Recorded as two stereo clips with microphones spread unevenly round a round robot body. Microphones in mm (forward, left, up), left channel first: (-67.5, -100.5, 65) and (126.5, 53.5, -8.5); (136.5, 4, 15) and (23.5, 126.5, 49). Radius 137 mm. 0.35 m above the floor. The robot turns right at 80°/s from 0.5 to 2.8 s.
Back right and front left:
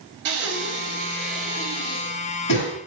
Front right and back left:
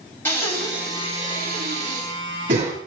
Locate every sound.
0.2 s breathing: 25° left, 6.5 m; by 2.7 s 155° right, 6.5 m